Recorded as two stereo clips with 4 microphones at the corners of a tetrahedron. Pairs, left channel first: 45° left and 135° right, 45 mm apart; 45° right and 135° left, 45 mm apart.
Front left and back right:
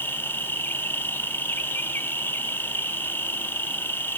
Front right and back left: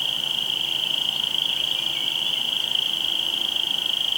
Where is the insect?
45° left, 1.3 m.